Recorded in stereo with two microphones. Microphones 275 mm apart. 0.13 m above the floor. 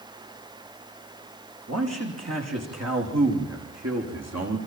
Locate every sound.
1.7 s a man speaking: 75° right (ahead or behind), 8.5 m; by 4.6 s 80° right, 7.5 m